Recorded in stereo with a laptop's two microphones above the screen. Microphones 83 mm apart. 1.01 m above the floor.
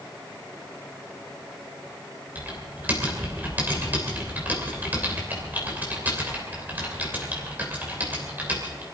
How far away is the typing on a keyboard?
About 3 m.